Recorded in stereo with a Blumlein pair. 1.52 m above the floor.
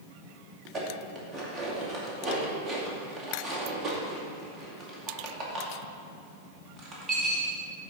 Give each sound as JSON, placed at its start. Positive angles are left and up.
{"t": 0.7, "sound": "dishes clattering", "azimuth_deg": -20, "distance_m": 2.0}